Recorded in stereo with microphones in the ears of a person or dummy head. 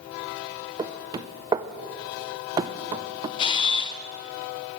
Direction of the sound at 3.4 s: 25° left (ahead or behind).